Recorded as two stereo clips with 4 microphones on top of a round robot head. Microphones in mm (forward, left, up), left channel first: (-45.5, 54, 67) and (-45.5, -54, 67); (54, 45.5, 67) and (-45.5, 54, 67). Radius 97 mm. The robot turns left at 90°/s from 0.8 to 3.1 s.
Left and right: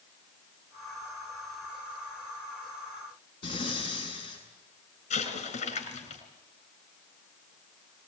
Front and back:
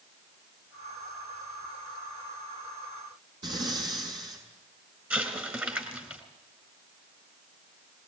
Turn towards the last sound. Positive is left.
turn(degrees=100)